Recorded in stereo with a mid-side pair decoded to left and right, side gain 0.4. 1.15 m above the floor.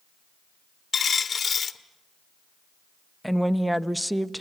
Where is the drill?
I don't hear a drill.